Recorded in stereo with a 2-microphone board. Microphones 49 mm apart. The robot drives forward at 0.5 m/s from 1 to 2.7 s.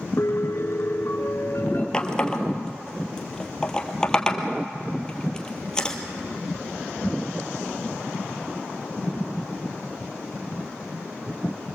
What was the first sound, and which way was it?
A piano, 60° left (ahead or behind).